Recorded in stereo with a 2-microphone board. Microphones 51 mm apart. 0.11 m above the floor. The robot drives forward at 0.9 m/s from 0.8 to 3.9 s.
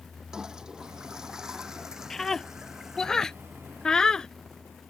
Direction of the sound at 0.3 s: 15° right (ahead or behind).